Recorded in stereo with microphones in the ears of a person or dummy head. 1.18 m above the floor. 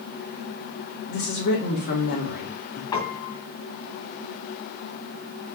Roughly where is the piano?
Left.